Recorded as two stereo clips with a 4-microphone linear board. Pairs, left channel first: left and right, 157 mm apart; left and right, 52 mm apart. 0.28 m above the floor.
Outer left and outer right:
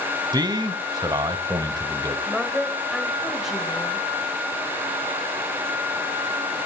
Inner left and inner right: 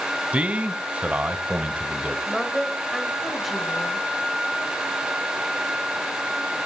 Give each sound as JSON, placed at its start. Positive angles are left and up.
{"t": 0.3, "sound": "a man speaking", "side_deg": -25, "distance_m": 1.1}
{"t": 2.3, "sound": "a woman speaking", "side_deg": 0, "distance_m": 1.1}